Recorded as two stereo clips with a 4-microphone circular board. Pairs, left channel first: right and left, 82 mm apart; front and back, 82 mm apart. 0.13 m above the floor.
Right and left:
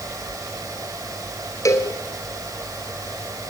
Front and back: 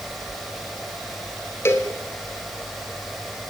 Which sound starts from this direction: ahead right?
A cowbell, at 1.6 s.